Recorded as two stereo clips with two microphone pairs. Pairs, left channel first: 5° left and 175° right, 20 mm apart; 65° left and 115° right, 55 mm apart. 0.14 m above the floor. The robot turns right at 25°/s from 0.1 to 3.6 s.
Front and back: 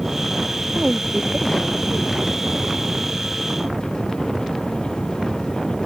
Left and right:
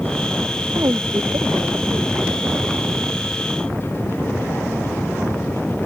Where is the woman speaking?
135° right; by 2.1 s 100° right.